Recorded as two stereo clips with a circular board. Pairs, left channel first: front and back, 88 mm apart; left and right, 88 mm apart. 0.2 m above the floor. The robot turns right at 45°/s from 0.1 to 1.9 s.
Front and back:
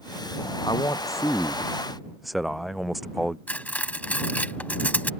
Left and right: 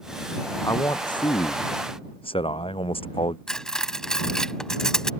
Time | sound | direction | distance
0.6 | a man speaking | 35° left | ?
3.5 | cutlery clinking | 20° left | ?